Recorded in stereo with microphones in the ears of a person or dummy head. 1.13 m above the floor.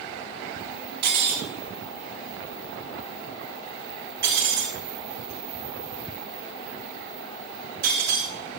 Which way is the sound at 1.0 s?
55° right (ahead or behind).